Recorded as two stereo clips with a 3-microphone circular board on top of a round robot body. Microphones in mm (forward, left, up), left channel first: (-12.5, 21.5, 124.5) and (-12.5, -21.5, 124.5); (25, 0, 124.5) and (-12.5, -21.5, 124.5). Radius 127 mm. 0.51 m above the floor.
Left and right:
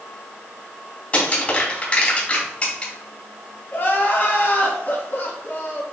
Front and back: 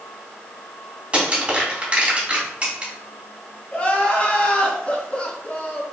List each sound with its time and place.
1.1 s crushing: 145° left, 3 m
3.7 s crying: 85° left, 1.9 m